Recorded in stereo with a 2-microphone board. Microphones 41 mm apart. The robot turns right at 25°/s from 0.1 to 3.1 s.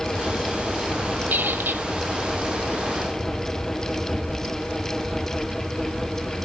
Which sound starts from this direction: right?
A squeak, at 1.3 s.